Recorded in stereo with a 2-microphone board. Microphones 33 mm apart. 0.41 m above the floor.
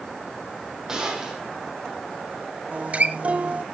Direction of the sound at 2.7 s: 40° right (ahead or behind).